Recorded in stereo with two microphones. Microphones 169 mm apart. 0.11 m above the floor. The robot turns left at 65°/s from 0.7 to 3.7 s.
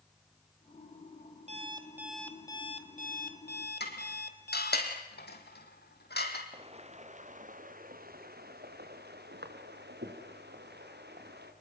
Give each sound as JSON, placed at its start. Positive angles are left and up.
{"t": 1.5, "sound": "an alarm clock", "azimuth_deg": -135, "distance_m": 2.0}
{"t": 3.8, "sound": "dishes clattering", "side_deg": 75, "distance_m": 3.5}
{"t": 6.5, "sound": "footsteps", "side_deg": -35, "distance_m": 3.0}